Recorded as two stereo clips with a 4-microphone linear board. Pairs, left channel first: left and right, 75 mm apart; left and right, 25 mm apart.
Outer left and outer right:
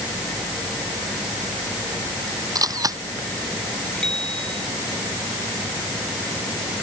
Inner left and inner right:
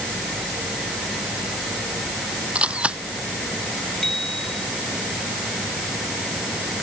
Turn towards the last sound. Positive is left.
turn(degrees=10)  # may be behind; listen again after turning